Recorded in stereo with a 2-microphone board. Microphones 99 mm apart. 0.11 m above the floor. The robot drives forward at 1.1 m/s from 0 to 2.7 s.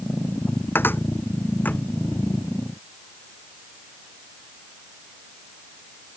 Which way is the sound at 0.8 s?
20° left (ahead or behind).